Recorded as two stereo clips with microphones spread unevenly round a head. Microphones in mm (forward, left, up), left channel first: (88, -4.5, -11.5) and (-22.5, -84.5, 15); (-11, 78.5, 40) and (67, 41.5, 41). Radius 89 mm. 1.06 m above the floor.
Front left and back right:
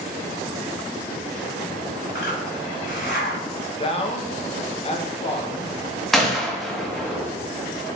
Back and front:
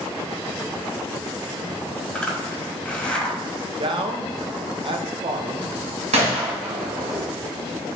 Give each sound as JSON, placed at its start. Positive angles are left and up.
{"t": 2.1, "sound": "a zipper", "azimuth_deg": 80, "distance_m": 1.7}
{"t": 3.8, "sound": "a man speaking", "azimuth_deg": -5, "distance_m": 0.8}
{"t": 6.1, "sound": "a gunshot", "azimuth_deg": -55, "distance_m": 1.0}